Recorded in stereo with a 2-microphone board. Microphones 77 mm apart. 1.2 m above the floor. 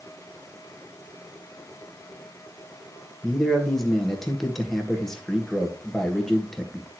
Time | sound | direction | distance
3.2 | a man speaking | 5° left (ahead or behind) | 1.7 m